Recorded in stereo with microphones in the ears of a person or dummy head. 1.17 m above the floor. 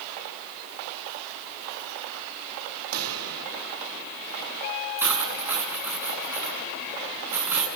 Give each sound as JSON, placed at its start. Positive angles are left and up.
{"t": 2.9, "sound": "a pop", "side_deg": -75, "distance_m": 4.0}
{"t": 5.0, "sound": "cutlery clinking", "side_deg": -15, "distance_m": 7.0}